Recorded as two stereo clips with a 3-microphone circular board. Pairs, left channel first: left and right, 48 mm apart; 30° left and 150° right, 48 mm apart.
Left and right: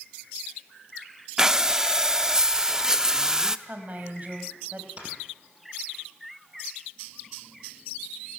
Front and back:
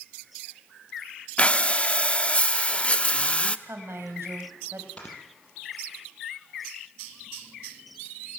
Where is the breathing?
20° right, 0.7 m.